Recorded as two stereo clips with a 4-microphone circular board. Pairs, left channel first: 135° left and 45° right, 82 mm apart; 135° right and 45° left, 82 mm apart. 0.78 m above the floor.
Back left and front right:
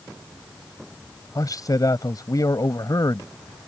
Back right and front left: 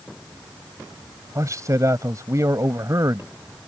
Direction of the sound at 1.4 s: 90° left.